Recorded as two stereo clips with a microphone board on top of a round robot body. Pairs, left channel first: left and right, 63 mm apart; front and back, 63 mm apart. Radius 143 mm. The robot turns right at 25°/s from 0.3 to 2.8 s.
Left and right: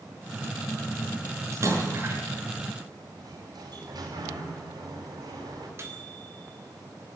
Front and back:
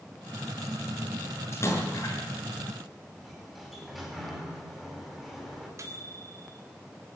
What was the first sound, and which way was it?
A splash, 50° right.